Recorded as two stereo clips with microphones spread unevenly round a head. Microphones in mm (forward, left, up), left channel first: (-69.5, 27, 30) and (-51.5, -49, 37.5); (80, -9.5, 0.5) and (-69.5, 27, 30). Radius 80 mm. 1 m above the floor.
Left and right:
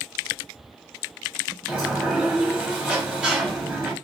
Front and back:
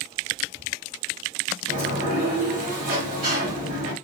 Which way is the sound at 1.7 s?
155° right.